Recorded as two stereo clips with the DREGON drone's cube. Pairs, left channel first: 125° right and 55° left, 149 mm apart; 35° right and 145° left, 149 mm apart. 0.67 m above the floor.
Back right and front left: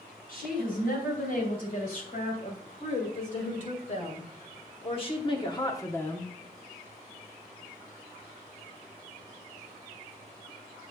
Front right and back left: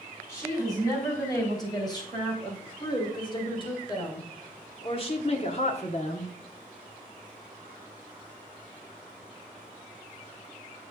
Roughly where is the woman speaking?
Right.